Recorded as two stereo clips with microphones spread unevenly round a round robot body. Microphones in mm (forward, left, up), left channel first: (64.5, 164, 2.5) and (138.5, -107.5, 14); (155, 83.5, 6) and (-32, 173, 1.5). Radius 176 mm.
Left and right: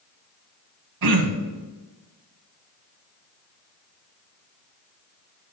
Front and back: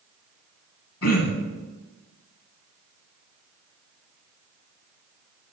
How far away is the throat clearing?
About 1.3 m.